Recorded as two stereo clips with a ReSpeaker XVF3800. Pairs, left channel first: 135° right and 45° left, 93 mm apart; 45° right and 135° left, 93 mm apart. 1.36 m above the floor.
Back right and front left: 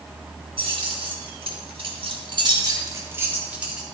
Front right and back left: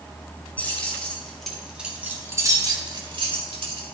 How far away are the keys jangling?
About 3 m.